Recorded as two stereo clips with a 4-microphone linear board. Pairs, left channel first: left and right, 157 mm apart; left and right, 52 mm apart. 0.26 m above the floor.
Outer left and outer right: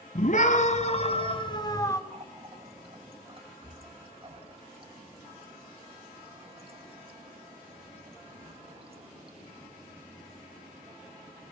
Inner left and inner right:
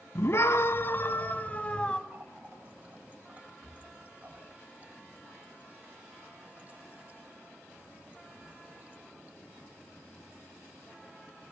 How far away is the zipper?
No zipper in this recording.